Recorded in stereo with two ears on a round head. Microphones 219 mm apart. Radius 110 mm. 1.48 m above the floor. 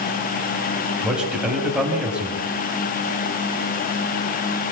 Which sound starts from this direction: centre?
A man speaking, at 1.0 s.